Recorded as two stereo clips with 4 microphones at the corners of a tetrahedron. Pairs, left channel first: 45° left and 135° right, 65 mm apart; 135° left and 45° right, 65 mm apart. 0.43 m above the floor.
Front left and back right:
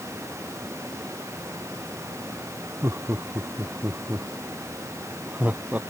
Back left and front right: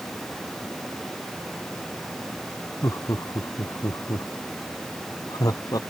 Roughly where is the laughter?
Behind.